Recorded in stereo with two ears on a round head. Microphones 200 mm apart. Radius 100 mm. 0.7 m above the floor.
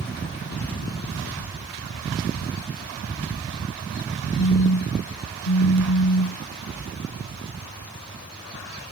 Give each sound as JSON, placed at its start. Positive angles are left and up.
{"t": 4.4, "sound": "a phone buzzing", "side_deg": 75}